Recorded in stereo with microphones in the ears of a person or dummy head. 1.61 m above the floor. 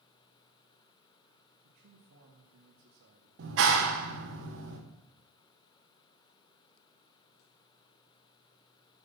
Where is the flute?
No flute in this recording.